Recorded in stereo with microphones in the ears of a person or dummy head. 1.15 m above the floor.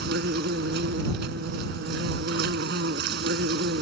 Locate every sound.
0.0 s an insect: 65° right (ahead or behind)